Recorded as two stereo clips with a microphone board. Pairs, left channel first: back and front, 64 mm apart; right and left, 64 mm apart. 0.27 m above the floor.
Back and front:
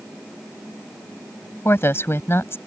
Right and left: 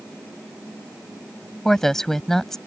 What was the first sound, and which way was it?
A woman speaking, 170° right.